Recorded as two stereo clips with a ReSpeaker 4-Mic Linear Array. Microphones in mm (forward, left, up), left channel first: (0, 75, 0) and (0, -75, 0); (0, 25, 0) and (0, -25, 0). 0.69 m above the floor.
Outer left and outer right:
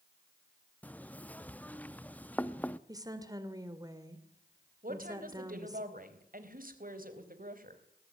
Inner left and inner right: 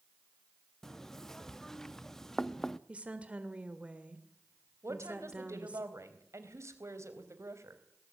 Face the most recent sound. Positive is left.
turn(degrees=-70)  # may be behind; listen again after turning